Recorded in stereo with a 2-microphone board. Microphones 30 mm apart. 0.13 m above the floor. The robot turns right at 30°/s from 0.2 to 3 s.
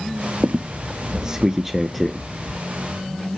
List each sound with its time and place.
0.4 s a squeak: 45° right (ahead or behind), 0.5 m; by 2.6 s 20° left (ahead or behind), 0.5 m